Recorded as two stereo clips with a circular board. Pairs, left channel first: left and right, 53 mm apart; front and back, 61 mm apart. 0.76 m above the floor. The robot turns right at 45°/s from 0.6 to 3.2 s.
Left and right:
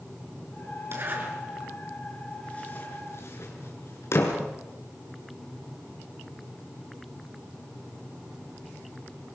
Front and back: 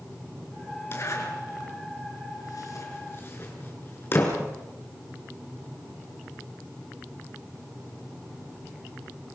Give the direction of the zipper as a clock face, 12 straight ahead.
2 o'clock.